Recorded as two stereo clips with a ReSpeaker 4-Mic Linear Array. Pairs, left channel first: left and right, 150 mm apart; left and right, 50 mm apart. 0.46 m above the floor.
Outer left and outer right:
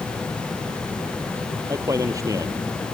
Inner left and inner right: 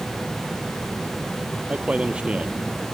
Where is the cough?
No cough in this recording.